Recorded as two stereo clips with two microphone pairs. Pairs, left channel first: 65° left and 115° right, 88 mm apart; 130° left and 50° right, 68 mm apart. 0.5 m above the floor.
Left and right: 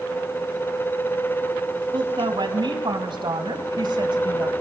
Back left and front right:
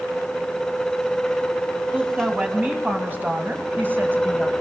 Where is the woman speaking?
115° right, 4 m; by 4.5 s 105° right, 2.5 m.